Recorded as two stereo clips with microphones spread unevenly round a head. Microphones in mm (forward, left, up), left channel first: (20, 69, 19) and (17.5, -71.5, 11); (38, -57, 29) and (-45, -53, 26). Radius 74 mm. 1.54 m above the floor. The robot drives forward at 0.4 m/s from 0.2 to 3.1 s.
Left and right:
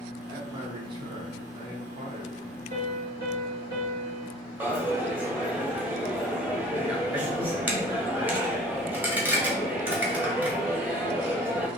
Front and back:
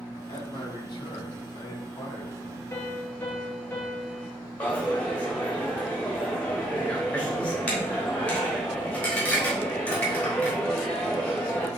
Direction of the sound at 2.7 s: 65° right.